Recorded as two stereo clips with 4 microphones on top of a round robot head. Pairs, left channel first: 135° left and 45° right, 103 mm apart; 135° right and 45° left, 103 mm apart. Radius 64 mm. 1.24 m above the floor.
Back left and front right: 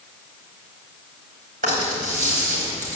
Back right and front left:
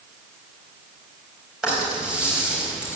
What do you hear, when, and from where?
1.6 s a rattle: 40° right, 4.5 m